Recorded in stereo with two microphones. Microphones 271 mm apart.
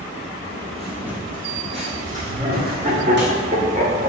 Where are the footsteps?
10° left (ahead or behind), 1.2 m; by 3.3 s 45° right (ahead or behind), 2 m.